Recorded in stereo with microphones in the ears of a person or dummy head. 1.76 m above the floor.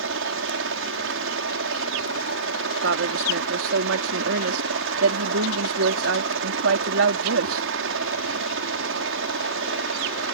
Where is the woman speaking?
75° right (ahead or behind).